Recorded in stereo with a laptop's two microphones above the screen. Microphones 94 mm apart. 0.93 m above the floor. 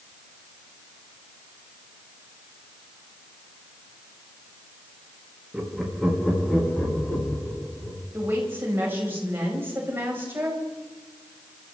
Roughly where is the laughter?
Centre.